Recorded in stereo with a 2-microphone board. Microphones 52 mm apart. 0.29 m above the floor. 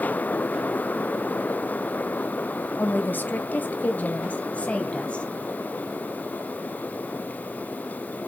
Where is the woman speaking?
45° left (ahead or behind), 1.6 m; by 5.2 s 25° left (ahead or behind), 1.8 m.